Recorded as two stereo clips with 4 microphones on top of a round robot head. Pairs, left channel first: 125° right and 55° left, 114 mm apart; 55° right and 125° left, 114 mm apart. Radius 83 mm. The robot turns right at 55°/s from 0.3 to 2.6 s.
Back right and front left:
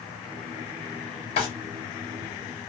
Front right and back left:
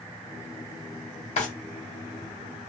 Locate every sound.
1.4 s a drawer: 85° right, 0.9 m; by 1.5 s 80° right, 0.9 m